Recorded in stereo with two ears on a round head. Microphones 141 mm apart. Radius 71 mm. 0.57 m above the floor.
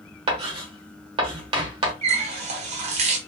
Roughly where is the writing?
Right.